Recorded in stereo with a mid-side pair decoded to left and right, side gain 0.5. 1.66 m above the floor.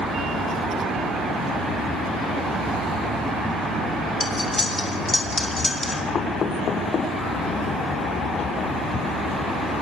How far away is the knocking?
About 4.5 m.